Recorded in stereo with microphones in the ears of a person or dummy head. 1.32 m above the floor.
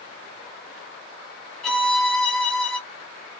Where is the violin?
10° left (ahead or behind), 1.2 m.